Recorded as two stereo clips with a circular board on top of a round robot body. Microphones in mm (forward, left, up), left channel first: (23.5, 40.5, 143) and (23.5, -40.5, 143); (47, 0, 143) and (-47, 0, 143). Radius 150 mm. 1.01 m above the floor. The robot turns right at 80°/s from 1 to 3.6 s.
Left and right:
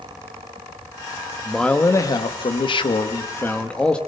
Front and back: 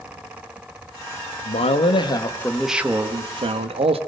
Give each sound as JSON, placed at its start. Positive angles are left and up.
{"t": 1.4, "sound": "a man speaking", "azimuth_deg": -5, "distance_m": 1.6}